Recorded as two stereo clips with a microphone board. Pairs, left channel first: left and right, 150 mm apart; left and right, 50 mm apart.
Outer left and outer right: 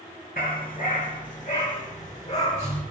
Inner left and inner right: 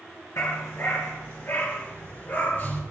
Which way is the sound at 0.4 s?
70° left (ahead or behind).